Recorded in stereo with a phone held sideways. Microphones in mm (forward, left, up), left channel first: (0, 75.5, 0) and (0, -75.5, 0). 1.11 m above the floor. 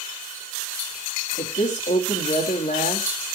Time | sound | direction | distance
1.4 | a woman speaking | 70° left (ahead or behind) | 2.5 m